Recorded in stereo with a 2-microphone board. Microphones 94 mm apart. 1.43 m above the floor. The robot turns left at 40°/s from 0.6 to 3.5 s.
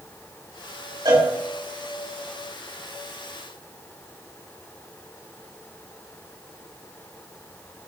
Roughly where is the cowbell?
Right.